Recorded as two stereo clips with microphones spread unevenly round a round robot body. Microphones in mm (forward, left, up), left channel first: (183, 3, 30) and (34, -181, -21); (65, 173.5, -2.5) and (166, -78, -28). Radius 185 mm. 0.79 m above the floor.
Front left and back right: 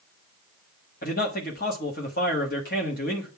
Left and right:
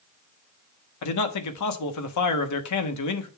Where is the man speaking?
115° left, 1.2 m.